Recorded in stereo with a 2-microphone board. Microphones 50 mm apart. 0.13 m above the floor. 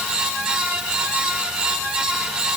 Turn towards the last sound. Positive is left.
No sound to turn to.